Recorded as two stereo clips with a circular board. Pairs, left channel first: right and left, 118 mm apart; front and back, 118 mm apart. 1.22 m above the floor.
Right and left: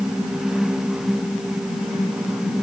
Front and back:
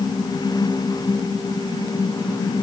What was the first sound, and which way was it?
Only background noise.